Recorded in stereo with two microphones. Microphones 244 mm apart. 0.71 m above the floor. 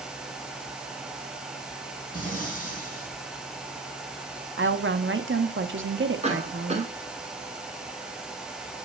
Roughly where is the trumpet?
I don't hear a trumpet.